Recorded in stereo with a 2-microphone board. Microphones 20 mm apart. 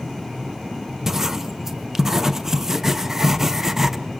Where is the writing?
20° right (ahead or behind), 0.7 m.